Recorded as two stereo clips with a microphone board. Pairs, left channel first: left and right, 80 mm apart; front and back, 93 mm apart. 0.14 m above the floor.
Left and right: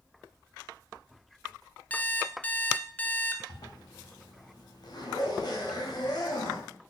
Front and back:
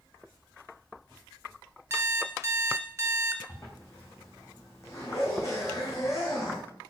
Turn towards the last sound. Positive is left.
turn(degrees=55)